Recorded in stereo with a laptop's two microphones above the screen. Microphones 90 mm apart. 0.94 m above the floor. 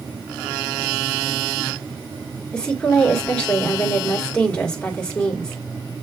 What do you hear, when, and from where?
2.5 s a woman speaking: 10° left (ahead or behind), 1.9 m